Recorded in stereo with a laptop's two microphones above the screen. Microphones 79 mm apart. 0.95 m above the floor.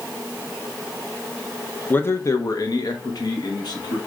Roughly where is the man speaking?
Left.